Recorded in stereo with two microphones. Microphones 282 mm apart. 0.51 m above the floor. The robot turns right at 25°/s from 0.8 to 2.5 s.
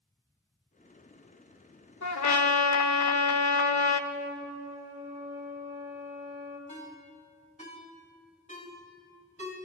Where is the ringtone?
25° left (ahead or behind), 2 m.